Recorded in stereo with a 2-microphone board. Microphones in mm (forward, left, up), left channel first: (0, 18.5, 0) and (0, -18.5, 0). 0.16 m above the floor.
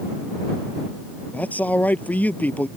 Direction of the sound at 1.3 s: 45° left (ahead or behind).